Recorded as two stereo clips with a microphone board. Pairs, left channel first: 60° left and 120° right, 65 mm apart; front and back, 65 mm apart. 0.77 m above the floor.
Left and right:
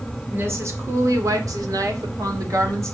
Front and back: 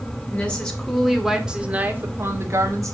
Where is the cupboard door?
No cupboard door in this recording.